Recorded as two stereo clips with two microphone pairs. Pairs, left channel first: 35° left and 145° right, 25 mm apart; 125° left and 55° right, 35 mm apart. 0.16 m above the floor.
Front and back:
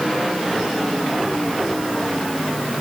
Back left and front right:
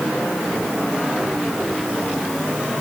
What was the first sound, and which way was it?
Only background noise.